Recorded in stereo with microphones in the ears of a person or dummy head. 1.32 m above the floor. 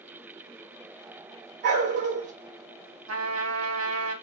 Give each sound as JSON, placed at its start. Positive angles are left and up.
{"t": 1.6, "sound": "a dog barking", "side_deg": -55, "distance_m": 1.5}
{"t": 3.1, "sound": "a trumpet", "side_deg": -85, "distance_m": 1.5}